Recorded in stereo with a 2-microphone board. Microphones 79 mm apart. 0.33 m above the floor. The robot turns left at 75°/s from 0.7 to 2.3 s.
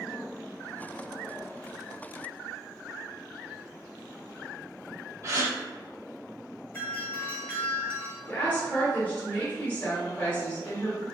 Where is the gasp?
35° right (ahead or behind), 1.6 m.